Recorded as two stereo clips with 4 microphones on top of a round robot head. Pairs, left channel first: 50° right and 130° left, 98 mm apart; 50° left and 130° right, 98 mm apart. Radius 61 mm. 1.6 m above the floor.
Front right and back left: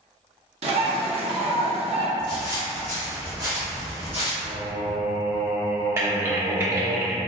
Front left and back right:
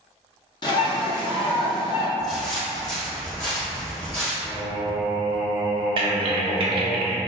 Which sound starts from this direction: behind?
Typing on a keyboard, at 6.0 s.